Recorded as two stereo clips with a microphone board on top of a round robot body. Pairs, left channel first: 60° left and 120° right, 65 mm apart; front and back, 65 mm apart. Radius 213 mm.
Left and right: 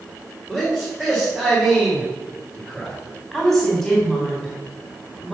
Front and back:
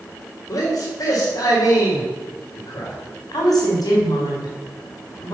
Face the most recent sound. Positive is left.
turn(degrees=-30)